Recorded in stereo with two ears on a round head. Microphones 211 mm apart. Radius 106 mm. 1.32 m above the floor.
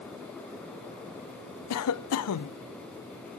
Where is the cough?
70° left (ahead or behind), 0.7 m.